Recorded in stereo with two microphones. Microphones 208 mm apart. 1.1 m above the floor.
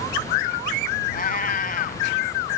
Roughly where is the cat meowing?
Left.